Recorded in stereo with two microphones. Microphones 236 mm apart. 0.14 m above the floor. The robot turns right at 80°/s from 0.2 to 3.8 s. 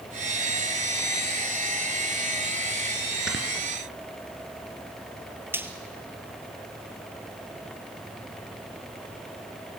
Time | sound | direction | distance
3.3 | snoring | 50° right (ahead or behind) | 2.5 m
5.5 | frying | 10° right (ahead or behind) | 1.7 m